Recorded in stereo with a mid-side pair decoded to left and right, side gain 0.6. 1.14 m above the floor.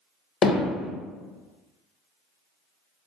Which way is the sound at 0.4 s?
40° left.